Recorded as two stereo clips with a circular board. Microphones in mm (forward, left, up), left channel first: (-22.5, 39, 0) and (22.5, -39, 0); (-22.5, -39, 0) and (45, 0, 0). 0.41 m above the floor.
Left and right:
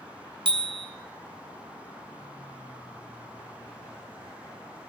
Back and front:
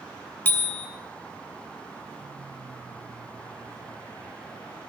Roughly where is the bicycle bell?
Right.